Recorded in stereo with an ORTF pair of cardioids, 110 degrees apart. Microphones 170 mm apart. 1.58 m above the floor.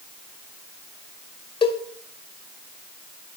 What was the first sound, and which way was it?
A cowbell, 30° left.